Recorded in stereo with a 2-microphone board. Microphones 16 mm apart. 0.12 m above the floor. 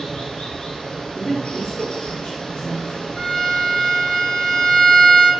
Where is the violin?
55° left (ahead or behind), 3 m.